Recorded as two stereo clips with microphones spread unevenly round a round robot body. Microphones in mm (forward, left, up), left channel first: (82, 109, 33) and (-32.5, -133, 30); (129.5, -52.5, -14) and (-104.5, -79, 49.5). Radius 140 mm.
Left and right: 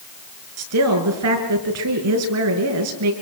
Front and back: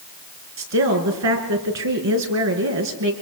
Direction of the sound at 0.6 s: 155° right.